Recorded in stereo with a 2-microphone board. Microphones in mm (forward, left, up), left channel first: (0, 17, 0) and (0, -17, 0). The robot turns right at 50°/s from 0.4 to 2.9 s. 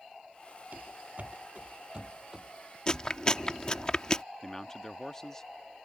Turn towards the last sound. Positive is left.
turn(degrees=15)  # may be behind; listen again after turning